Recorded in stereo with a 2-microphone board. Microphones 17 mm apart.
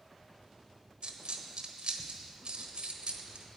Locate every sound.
1.0 s a dropped coin: 80° right, 1.0 m